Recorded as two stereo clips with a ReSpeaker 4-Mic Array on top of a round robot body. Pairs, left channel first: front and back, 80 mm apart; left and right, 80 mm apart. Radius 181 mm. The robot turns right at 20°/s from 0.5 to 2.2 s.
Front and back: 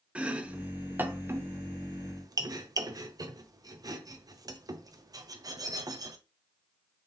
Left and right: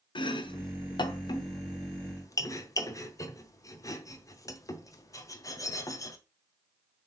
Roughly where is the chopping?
Left.